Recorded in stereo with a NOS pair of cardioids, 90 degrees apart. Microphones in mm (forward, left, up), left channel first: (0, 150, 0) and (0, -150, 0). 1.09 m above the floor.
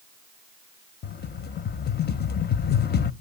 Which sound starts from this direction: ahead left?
A rattle, at 1.0 s.